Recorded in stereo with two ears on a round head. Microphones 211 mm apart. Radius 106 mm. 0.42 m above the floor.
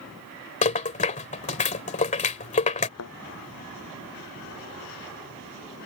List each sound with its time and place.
0.6 s a rattle: 30° left (ahead or behind)
3.0 s a thud: 70° left (ahead or behind)